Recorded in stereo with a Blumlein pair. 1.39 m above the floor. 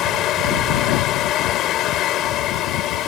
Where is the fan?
35° left.